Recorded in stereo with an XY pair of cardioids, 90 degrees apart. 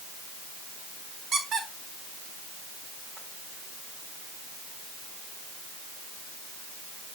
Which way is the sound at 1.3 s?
65° right.